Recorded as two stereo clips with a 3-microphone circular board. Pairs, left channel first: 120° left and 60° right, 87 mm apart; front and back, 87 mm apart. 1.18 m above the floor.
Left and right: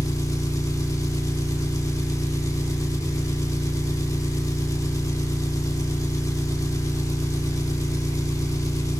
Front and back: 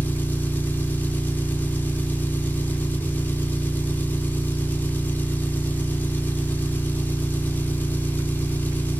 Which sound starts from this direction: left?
An engine running, at 0.0 s.